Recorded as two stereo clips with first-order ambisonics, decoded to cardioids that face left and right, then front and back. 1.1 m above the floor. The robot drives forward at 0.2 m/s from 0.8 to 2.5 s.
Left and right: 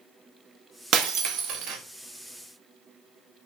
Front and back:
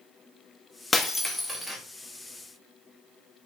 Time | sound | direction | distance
0.9 | breaking glass | 75° right | 0.6 m